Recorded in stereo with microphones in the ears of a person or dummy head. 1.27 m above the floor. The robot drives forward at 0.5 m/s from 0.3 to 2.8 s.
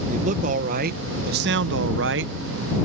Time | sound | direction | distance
0.1 | a man speaking | 40° right (ahead or behind) | ?